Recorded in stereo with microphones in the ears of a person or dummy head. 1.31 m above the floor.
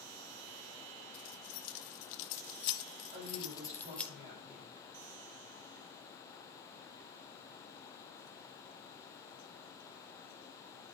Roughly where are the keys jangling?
Left.